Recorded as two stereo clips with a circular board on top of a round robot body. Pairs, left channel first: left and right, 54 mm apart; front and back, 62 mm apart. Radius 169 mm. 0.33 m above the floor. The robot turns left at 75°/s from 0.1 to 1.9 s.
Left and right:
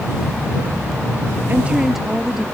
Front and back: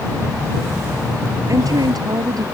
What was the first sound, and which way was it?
A woman speaking, 145° right.